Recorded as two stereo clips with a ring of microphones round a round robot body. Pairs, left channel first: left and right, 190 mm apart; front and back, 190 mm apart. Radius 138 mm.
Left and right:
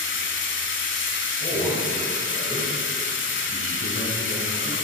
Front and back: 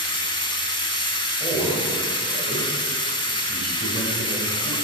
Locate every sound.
0.0 s running water: 70° left, 0.7 m
1.4 s a man speaking: 125° left, 2 m